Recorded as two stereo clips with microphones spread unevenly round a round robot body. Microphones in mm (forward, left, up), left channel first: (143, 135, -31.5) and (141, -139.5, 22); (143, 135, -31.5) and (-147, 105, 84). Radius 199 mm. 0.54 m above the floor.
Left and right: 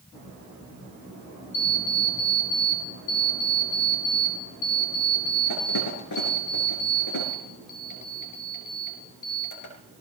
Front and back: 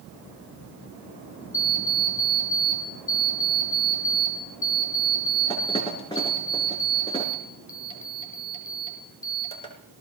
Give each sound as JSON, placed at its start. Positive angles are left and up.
{"t": 1.5, "sound": "an alarm clock", "azimuth_deg": 80, "distance_m": 3.5}